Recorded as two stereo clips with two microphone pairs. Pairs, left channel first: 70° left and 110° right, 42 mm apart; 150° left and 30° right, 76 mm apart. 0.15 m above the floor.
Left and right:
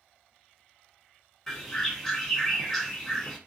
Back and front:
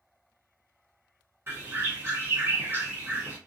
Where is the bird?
10° right, 1.4 m.